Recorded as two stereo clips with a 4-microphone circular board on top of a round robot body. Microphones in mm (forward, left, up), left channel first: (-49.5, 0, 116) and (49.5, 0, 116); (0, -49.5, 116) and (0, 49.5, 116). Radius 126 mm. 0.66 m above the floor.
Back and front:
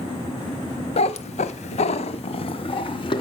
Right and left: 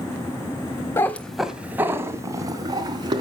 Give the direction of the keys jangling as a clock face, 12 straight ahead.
I don't hear keys jangling.